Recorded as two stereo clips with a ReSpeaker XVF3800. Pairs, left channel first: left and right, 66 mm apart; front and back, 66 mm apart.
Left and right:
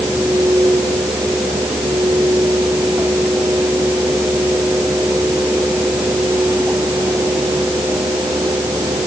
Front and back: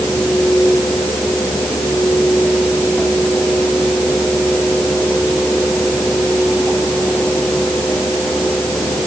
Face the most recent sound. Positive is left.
No sound to turn to.